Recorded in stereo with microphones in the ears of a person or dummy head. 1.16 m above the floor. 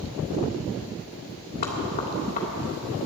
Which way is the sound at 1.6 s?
45° left (ahead or behind).